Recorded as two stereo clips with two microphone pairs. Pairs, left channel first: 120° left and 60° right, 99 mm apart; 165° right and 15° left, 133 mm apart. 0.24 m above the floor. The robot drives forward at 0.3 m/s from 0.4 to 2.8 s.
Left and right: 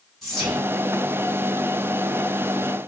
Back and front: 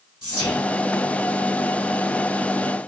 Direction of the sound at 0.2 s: 150° right.